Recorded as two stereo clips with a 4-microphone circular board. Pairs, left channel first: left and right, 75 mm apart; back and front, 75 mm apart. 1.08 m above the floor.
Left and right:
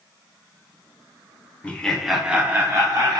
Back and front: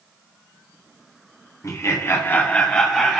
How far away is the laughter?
About 0.6 m.